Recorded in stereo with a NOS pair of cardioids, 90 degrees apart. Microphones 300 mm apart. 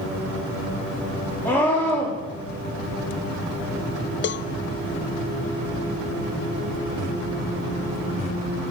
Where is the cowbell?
40° left, 0.5 m.